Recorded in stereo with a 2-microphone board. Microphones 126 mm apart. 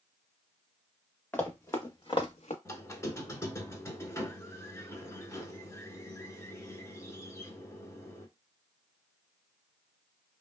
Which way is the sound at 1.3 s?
15° left (ahead or behind).